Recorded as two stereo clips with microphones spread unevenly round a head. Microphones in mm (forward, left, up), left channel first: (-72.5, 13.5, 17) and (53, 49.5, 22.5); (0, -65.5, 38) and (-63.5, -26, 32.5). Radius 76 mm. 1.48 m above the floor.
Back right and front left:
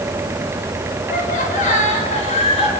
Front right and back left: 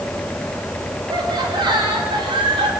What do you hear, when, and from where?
1.1 s laughter: 175° left, 5.5 m; by 2.7 s 155° left, 5.5 m